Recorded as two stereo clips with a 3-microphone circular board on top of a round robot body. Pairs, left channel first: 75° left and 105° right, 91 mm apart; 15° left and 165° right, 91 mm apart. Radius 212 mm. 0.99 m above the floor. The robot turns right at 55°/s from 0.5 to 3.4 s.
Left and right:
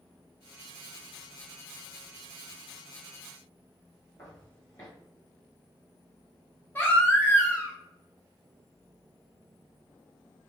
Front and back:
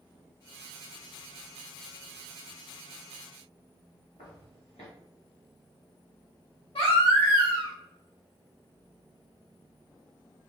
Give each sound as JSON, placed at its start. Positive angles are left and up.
{"t": 4.2, "sound": "footsteps", "azimuth_deg": 20, "distance_m": 1.3}
{"t": 6.8, "sound": "a baby crying", "azimuth_deg": 5, "distance_m": 1.2}